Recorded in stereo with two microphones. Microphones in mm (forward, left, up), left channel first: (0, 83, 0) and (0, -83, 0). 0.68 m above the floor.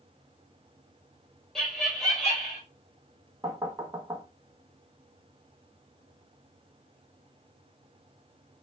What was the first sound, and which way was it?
Laughter, 5° left (ahead or behind).